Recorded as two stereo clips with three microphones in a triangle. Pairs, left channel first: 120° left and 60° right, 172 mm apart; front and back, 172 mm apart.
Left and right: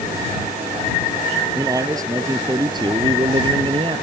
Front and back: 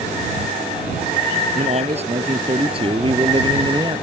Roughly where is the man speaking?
Behind right.